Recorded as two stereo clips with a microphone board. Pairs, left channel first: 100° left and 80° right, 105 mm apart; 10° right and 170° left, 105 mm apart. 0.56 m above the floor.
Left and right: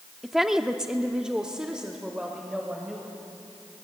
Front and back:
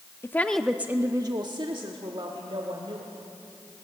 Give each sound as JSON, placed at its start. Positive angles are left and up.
{"t": 0.2, "sound": "a woman speaking", "azimuth_deg": 5, "distance_m": 0.8}